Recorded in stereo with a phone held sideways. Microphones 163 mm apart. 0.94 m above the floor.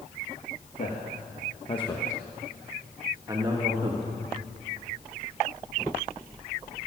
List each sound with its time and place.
0.8 s a man speaking: 60° left (ahead or behind), 1.6 m; by 4.1 s 35° right (ahead or behind), 2.0 m